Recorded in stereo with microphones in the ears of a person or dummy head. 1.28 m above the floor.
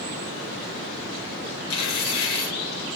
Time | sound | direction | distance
1.7 | tearing paper | 60° left (ahead or behind) | 0.7 m